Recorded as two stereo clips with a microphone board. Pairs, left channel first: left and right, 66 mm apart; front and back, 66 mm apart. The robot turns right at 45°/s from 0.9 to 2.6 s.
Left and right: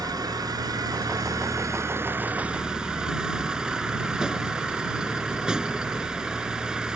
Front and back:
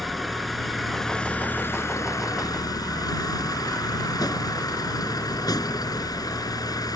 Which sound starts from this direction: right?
A vehicle, at 0.0 s.